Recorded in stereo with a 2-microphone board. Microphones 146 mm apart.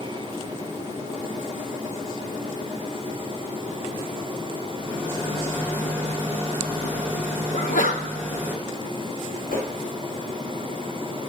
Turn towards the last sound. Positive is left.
turn(degrees=90)